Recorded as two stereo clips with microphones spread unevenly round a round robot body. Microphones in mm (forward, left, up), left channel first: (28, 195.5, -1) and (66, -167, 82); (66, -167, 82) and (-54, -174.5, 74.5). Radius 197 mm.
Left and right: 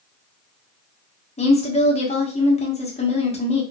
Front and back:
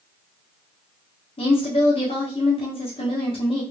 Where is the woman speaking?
40° left, 1.2 m.